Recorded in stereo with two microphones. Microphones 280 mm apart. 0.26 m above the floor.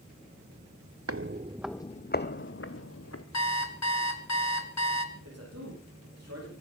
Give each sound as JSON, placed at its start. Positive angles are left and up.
{"t": 1.1, "sound": "footsteps", "side_deg": -60, "distance_m": 0.7}
{"t": 3.3, "sound": "an alarm clock", "side_deg": 70, "distance_m": 1.7}
{"t": 5.2, "sound": "a man speaking", "side_deg": -65, "distance_m": 9.0}